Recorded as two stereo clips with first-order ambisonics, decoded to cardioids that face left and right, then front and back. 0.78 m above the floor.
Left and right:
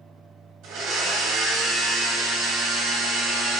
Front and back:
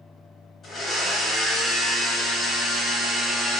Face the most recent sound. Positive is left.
turn(degrees=-65)